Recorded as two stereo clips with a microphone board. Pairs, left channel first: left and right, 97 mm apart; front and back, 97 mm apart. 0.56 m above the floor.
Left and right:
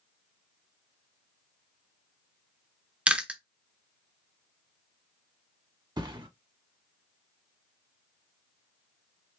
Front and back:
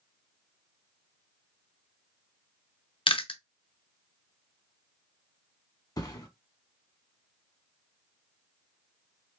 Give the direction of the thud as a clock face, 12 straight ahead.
2 o'clock.